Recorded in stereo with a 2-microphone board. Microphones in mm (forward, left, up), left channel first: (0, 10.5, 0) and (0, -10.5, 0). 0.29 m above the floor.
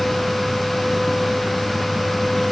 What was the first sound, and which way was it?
Only background noise.